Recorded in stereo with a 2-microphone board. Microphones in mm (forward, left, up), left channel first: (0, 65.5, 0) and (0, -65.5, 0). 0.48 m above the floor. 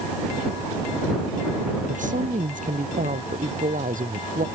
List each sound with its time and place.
1.9 s a woman speaking: 75° right (ahead or behind); by 4.5 s 85° right